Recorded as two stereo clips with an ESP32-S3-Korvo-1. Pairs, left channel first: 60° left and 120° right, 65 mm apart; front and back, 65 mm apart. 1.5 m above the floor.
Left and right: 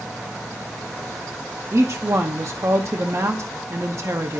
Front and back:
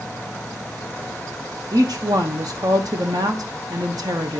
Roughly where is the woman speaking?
Behind.